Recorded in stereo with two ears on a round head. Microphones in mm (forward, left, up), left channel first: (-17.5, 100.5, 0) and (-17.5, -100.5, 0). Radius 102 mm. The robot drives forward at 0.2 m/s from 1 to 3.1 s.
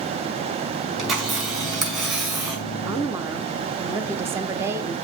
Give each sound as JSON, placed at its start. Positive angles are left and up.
{"t": 1.0, "sound": "a camera shutter", "side_deg": 0, "distance_m": 5.0}
{"t": 2.9, "sound": "a woman speaking", "side_deg": -10, "distance_m": 0.7}